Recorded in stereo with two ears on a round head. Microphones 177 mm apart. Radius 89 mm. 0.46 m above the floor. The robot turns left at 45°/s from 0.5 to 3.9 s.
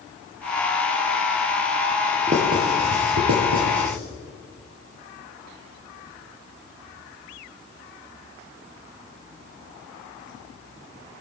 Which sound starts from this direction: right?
Writing, at 2.3 s.